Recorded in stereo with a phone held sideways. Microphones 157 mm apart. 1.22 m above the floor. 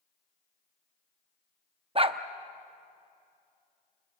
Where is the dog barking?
35° right (ahead or behind), 0.7 m.